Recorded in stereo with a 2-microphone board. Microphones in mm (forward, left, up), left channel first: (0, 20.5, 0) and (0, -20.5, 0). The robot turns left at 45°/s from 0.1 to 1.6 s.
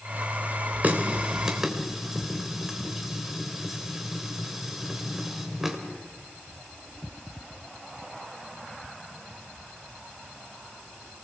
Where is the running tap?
45° right (ahead or behind), 3 m; by 5.8 s 10° right (ahead or behind), 3 m.